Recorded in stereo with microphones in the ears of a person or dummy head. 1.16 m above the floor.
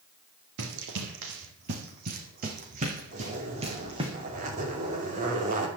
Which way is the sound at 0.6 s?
65° right (ahead or behind).